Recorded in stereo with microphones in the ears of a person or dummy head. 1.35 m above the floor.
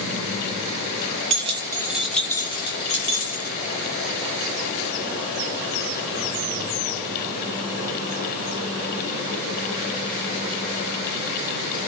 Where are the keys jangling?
35° right (ahead or behind), 0.7 m; by 3.5 s 50° left (ahead or behind), 1.1 m.